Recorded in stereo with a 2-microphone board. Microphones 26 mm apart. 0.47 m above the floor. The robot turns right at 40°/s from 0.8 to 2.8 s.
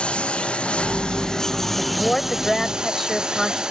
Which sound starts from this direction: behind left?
A woman speaking, at 1.8 s.